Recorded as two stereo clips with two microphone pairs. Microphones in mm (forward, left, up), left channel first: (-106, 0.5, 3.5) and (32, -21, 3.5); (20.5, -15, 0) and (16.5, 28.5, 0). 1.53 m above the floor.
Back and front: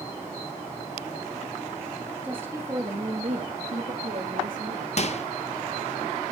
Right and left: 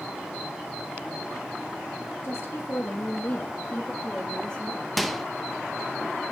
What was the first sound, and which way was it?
A woman speaking, 90° right.